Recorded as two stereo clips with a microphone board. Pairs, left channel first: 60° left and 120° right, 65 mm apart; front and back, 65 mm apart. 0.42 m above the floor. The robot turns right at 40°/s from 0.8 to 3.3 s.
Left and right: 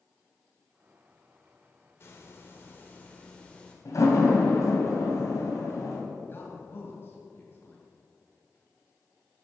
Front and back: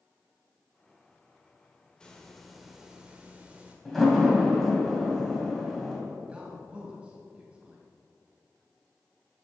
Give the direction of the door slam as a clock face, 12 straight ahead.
9 o'clock.